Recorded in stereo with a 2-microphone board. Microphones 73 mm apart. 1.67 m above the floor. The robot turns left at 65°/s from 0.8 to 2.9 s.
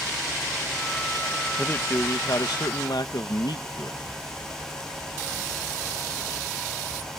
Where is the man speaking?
160° left; by 4.0 s 75° left.